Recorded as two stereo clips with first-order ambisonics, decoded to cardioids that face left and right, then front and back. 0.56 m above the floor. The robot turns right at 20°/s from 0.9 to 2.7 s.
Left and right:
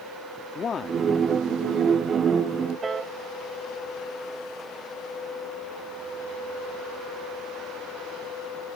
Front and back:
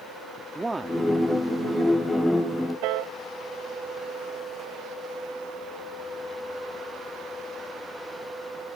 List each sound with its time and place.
0.6 s a man speaking: 110° left
2.8 s a piano: 165° right